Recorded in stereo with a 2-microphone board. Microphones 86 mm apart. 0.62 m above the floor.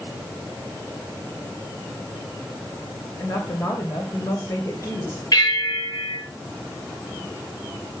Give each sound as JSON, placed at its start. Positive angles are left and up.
{"t": 3.2, "sound": "a woman speaking", "side_deg": 40, "distance_m": 2.5}
{"t": 5.3, "sound": "a bell", "side_deg": 50, "distance_m": 8.0}